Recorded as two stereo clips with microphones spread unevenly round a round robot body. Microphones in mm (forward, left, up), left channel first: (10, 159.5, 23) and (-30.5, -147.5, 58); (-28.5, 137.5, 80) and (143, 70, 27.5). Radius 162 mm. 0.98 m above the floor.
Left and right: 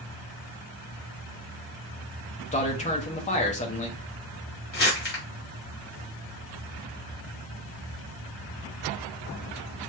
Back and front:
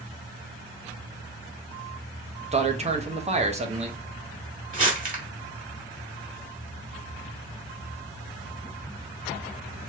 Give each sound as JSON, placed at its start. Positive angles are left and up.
{"t": 2.5, "sound": "a man speaking", "azimuth_deg": 20, "distance_m": 1.3}
{"t": 4.7, "sound": "crumpling", "azimuth_deg": 25, "distance_m": 2.5}